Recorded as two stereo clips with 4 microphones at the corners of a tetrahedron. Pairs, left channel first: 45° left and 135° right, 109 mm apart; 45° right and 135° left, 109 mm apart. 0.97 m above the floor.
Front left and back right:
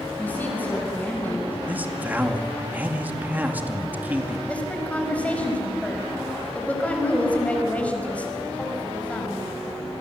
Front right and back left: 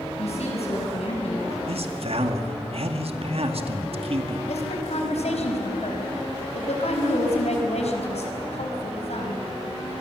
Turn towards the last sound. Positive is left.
turn(degrees=-30)